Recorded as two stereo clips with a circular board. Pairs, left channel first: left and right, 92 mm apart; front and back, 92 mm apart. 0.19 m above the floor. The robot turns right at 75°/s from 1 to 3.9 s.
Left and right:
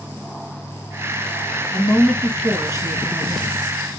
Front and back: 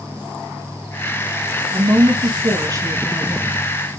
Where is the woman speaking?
140° left, 2.5 m; by 3.7 s 75° right, 2.5 m.